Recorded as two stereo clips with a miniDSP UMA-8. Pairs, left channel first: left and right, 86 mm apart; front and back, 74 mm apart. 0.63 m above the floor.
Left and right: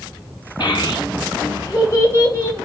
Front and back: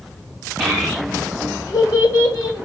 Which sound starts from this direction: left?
A child speaking, at 0.6 s.